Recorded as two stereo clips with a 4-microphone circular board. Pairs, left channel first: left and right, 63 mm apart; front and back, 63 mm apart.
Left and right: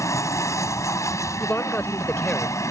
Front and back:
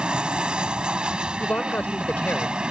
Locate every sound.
0.0 s an aircraft: 110° left
1.4 s a man speaking: 45° left